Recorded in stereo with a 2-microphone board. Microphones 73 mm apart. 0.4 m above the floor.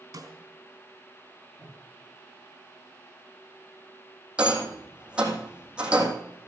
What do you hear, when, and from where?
0.1 s a snare drum: 55° right (ahead or behind), 3.5 m
1.6 s breathing: 20° right (ahead or behind), 9.5 m
4.4 s a rattle: 15° right (ahead or behind), 3 m